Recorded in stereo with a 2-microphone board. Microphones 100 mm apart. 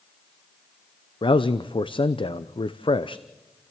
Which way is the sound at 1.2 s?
55° left (ahead or behind).